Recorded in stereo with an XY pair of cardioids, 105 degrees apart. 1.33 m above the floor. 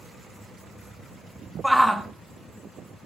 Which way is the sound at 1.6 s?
Straight ahead.